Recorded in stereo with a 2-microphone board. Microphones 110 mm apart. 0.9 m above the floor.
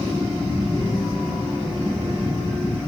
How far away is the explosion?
About 3.5 m.